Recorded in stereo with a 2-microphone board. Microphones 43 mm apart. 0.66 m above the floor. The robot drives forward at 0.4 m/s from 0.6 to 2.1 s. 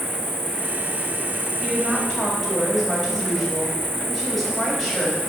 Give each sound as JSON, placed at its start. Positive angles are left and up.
{"t": 0.0, "sound": "an insect", "side_deg": -60, "distance_m": 1.0}
{"t": 1.6, "sound": "a woman speaking", "side_deg": 5, "distance_m": 4.0}